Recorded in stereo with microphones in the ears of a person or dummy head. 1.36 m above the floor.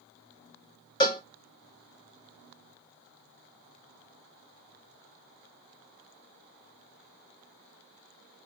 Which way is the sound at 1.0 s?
20° left (ahead or behind).